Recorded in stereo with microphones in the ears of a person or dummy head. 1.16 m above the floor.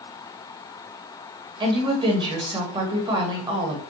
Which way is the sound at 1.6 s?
35° right (ahead or behind).